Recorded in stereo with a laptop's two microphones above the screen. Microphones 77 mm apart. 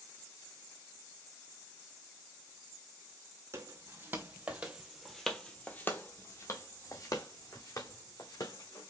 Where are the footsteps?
35° right (ahead or behind), 1.6 m; by 8.9 s 55° left (ahead or behind), 3 m.